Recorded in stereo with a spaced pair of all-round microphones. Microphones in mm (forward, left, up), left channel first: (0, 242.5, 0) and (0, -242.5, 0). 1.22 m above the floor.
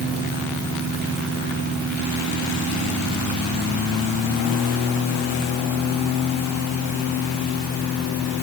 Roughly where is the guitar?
I don't hear a guitar.